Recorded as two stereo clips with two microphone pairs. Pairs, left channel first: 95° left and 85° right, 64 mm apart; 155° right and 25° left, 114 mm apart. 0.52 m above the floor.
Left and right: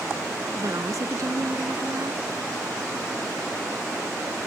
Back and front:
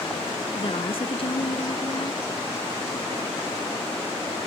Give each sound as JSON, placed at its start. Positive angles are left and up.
{"t": 0.6, "sound": "a woman speaking", "azimuth_deg": -115}